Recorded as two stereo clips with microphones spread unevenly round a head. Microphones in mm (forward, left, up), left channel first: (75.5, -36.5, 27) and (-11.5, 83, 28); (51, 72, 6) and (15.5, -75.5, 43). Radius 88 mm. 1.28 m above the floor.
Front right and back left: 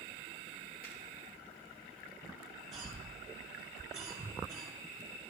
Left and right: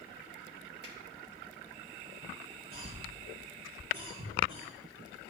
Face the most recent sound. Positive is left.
turn(degrees=-145)